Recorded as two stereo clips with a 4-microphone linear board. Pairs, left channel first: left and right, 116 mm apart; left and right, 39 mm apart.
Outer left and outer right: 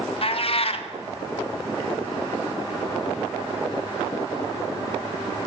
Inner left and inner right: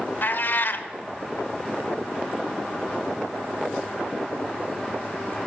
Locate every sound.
0.2 s a cat meowing: 55° left (ahead or behind), 0.6 m